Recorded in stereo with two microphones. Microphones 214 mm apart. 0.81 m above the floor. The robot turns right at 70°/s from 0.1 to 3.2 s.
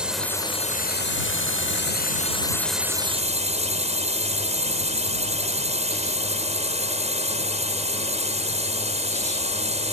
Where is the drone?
5° right; by 9.9 s 145° right.